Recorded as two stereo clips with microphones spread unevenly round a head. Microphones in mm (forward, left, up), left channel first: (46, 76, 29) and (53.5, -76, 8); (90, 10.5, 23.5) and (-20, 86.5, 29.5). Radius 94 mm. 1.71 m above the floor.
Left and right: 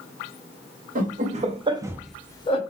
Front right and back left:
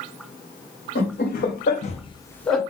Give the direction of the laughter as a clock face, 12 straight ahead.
2 o'clock.